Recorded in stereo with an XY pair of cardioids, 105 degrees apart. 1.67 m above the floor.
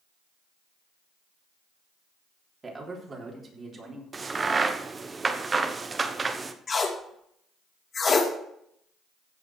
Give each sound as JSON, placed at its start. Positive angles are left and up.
{"t": 2.6, "sound": "a man speaking", "azimuth_deg": -30, "distance_m": 3.5}
{"t": 4.1, "sound": "a crack", "azimuth_deg": -30, "distance_m": 1.0}
{"t": 6.7, "sound": "tape being pulled", "azimuth_deg": 35, "distance_m": 2.5}